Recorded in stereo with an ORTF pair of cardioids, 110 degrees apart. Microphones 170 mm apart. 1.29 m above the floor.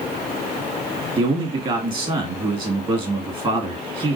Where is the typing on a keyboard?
No typing on a keyboard in this recording.